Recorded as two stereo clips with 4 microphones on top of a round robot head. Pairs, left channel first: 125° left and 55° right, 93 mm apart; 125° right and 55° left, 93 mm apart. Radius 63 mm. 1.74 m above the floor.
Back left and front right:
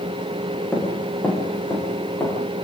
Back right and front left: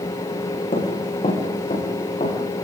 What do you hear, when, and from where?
0.7 s running footsteps: 155° right, 8 m; by 2.4 s 165° right, 10 m